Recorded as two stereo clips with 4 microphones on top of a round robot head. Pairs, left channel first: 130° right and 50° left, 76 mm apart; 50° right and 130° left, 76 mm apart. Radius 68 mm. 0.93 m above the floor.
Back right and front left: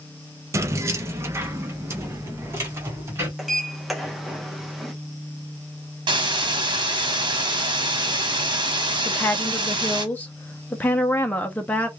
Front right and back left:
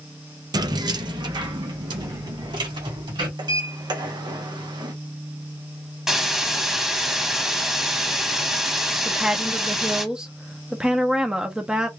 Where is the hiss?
50° left, 1.2 m.